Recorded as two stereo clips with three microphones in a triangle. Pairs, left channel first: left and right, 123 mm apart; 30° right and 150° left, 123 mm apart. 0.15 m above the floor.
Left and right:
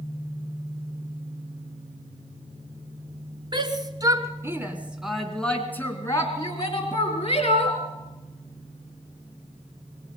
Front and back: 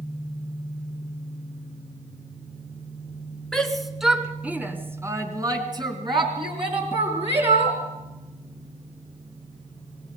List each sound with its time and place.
3.5 s a shout: 115° right, 2 m; by 7.8 s 120° left, 3 m